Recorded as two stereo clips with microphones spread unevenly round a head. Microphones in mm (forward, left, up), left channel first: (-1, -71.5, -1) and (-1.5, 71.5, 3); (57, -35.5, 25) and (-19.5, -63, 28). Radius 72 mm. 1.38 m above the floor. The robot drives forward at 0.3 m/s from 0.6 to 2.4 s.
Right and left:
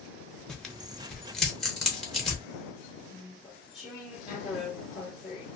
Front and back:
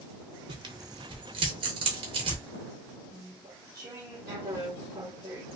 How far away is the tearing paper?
About 0.7 m.